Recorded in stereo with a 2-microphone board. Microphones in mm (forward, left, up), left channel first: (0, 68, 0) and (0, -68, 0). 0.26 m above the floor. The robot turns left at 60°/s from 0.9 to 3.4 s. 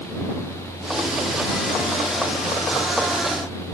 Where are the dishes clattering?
No dishes clattering in this recording.